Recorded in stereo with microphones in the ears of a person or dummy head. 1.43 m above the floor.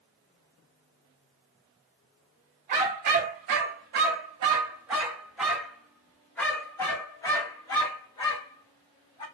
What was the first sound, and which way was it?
A dog barking, 40° right (ahead or behind).